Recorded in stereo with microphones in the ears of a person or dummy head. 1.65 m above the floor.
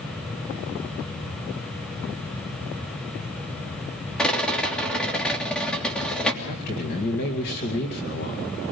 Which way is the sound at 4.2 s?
5° left (ahead or behind).